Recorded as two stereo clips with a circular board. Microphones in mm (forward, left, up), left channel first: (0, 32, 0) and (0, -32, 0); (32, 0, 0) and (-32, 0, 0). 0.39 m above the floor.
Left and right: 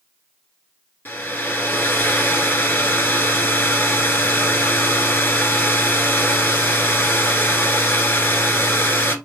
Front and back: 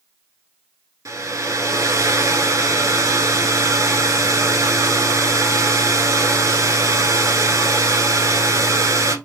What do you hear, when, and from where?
1.1 s a hair dryer: 145° left, 1.1 m